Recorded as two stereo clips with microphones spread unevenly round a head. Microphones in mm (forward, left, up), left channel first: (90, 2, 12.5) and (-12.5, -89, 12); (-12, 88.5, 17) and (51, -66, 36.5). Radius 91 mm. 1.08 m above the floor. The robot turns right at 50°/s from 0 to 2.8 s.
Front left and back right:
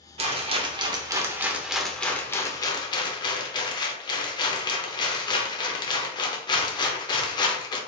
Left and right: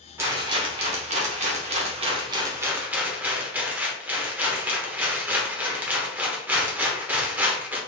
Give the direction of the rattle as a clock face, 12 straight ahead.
4 o'clock.